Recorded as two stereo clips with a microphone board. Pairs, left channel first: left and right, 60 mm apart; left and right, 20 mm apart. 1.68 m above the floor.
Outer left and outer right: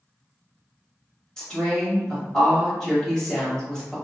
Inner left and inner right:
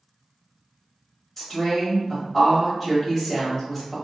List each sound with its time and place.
1.4 s a woman speaking: 10° left (ahead or behind), 1.3 m